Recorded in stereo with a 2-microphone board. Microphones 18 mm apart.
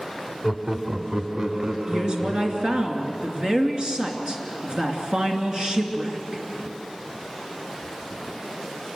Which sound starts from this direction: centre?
Laughter, at 0.4 s.